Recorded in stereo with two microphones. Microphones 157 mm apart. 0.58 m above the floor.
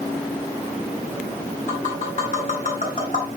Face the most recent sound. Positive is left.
turn(degrees=60)  # may be behind; listen again after turning